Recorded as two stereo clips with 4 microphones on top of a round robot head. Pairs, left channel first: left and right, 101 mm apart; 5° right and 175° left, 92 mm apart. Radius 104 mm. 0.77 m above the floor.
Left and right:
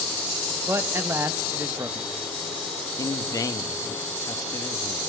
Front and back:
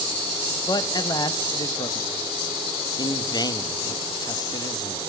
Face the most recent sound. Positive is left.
turn(degrees=35)